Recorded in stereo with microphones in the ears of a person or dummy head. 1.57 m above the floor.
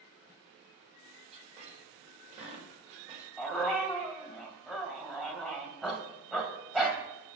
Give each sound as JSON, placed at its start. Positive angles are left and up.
{"t": 1.3, "sound": "a squeak", "side_deg": -35, "distance_m": 4.0}
{"t": 3.4, "sound": "a dog barking", "side_deg": -5, "distance_m": 2.5}